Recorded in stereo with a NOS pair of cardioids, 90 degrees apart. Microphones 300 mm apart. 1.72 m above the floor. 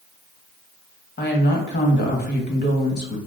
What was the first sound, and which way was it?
A woman speaking, 35° left.